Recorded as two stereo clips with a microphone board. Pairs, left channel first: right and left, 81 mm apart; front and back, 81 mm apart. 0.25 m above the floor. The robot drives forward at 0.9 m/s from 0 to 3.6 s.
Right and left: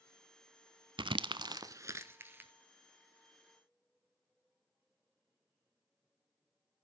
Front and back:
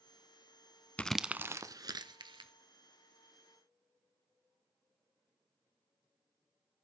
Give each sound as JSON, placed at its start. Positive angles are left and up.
{"t": 1.0, "sound": "crumpling", "azimuth_deg": 75, "distance_m": 0.5}